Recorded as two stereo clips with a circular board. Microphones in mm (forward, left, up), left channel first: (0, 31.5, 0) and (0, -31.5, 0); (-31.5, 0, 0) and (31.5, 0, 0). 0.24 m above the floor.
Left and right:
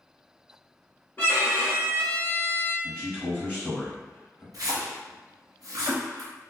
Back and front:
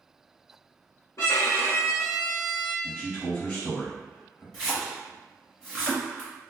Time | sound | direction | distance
1.2 | a violin | 150° left | 1.2 m
2.8 | a man speaking | 140° left | 1.3 m
4.5 | a splash | 100° right | 1.2 m